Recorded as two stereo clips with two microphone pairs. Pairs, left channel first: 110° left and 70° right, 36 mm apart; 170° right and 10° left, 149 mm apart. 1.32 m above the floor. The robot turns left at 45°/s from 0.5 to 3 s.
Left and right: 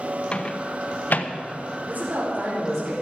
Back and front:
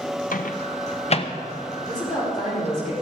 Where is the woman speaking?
100° right, 4 m; by 2.9 s 150° right, 4 m.